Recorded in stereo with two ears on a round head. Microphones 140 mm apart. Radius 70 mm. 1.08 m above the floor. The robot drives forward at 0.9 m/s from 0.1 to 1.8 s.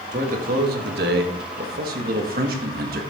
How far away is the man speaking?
About 1.8 m.